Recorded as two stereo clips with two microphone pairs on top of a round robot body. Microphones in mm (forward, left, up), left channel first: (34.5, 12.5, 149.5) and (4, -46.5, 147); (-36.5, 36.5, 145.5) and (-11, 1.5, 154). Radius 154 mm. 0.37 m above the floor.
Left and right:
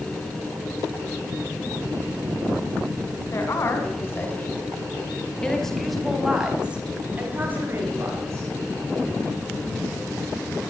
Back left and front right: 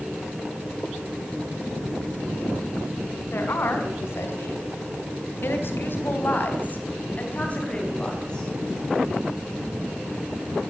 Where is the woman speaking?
110° left, 5 m; by 8.5 s 165° right, 5 m.